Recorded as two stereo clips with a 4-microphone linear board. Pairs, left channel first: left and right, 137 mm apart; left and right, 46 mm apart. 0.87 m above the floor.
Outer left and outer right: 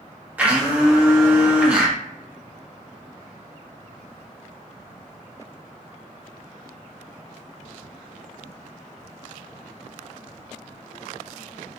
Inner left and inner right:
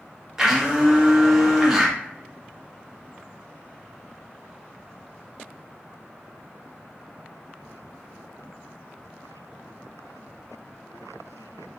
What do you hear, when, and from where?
0.4 s a blender: 10° right (ahead or behind), 0.8 m